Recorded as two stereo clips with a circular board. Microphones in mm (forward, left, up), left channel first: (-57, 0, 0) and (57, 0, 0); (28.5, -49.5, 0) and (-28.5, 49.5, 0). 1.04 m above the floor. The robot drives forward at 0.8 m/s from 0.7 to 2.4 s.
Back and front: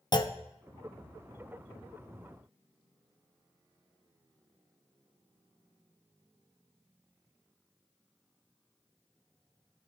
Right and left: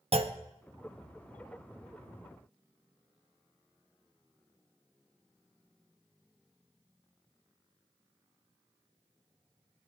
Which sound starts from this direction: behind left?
A clunk, at 0.1 s.